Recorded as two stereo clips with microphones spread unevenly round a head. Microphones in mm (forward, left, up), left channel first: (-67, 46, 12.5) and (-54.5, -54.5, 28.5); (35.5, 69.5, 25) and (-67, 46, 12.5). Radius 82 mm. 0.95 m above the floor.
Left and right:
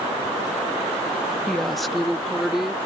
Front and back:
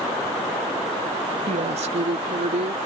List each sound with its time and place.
1.5 s a woman speaking: straight behind; by 2.8 s 170° right